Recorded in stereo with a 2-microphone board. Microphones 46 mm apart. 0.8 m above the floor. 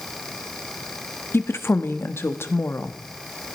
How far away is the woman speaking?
About 1.0 m.